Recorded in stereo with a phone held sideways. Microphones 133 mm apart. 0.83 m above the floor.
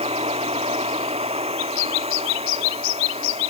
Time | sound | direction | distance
0.0 | a machine running | 50° right (ahead or behind) | ?